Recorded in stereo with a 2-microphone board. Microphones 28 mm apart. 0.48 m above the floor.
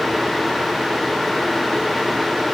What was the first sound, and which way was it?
Only background noise.